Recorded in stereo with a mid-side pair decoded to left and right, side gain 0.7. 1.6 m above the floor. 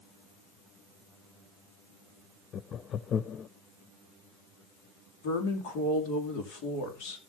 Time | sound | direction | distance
2.5 | laughter | 40° left | 0.5 m
5.2 | a woman speaking | 70° left | 2.5 m